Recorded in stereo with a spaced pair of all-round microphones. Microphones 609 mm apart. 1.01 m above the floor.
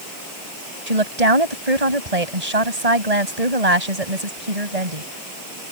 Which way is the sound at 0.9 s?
85° right.